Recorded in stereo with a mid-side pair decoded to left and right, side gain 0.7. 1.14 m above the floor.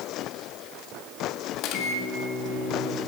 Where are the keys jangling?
No keys jangling in this recording.